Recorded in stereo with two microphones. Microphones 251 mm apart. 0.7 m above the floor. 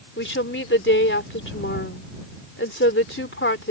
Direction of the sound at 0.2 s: 50° left (ahead or behind).